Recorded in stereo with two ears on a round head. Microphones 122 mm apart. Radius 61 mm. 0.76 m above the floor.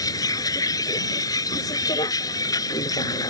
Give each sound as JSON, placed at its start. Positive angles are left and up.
{"t": 0.0, "sound": "a vehicle", "side_deg": 25}